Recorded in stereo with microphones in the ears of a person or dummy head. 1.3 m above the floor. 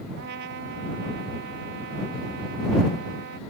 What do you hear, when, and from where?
0.2 s a trumpet: 65° right (ahead or behind)